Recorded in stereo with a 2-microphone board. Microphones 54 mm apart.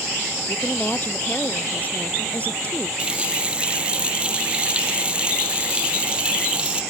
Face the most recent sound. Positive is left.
turn(degrees=-20)  # may be behind; listen again after turning